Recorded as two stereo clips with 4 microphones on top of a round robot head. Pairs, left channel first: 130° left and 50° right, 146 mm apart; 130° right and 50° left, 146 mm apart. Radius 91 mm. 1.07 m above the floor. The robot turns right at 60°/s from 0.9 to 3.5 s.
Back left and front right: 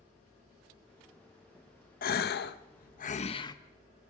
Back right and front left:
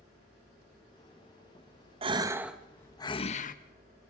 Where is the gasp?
105° left, 0.9 m; by 3.5 s 165° right, 0.9 m.